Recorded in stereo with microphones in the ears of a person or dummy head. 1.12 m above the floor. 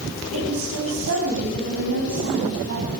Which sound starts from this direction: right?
A woman speaking, at 0.3 s.